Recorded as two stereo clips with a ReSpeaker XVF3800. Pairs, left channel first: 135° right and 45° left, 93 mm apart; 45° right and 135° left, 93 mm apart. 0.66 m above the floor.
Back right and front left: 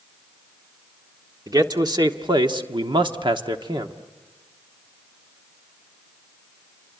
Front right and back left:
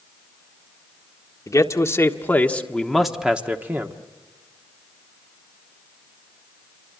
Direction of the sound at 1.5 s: 5° left.